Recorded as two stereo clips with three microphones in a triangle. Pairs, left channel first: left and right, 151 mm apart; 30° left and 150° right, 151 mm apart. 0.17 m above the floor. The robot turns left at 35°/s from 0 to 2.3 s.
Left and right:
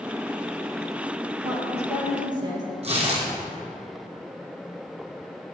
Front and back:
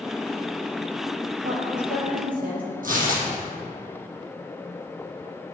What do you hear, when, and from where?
1.4 s a woman speaking: 120° right, 4 m; by 2.7 s 150° right, 4 m
2.8 s tearing paper: 135° right, 2.5 m